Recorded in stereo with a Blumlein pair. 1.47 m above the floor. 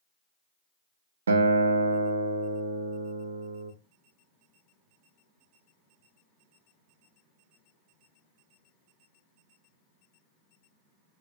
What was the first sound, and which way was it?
A guitar, 70° right.